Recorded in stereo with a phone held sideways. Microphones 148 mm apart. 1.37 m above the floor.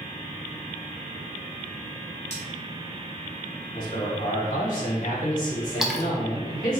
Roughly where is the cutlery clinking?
Left.